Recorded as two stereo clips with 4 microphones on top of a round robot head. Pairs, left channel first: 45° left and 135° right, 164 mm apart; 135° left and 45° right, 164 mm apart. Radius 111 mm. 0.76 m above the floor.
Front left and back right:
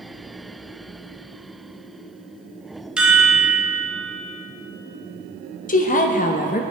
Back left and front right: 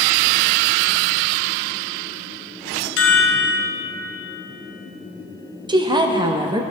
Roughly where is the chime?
Behind left.